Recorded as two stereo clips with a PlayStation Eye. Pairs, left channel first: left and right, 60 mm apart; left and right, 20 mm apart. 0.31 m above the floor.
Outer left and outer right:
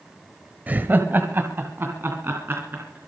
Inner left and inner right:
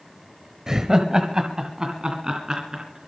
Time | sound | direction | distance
0.7 | laughter | 30° right (ahead or behind) | 1.1 m